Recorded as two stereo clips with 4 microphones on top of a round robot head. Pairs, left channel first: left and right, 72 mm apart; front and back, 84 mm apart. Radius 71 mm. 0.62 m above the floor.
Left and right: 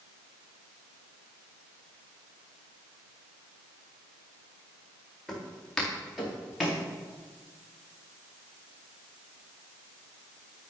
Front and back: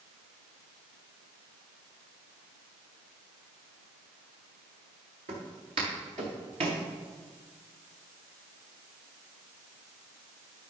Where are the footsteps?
175° left, 4.5 m.